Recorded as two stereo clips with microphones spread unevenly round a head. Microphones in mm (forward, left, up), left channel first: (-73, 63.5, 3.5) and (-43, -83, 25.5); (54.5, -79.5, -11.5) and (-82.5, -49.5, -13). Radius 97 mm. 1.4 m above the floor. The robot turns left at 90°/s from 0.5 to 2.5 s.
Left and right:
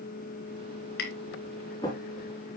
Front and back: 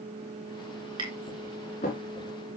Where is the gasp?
No gasp in this recording.